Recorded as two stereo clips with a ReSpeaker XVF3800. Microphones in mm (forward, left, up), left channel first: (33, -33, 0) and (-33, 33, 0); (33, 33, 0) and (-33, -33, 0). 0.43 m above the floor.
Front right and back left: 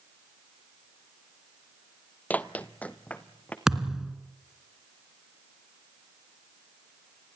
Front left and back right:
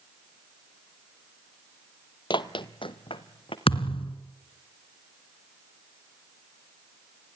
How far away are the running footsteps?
About 0.7 m.